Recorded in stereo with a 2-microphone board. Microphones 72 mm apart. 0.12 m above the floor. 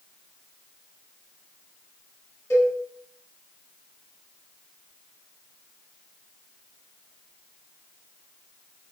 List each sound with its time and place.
2.5 s a cowbell: 45° left (ahead or behind), 1.3 m